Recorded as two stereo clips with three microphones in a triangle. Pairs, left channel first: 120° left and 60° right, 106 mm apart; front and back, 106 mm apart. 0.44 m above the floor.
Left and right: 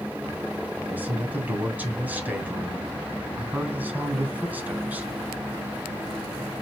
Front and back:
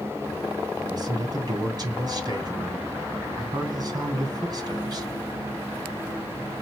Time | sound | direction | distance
0.8 | a man speaking | 130° right | 3 m